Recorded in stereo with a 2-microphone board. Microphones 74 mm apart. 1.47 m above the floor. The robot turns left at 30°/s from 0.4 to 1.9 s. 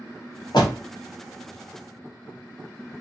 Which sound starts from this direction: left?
A door slam, at 0.5 s.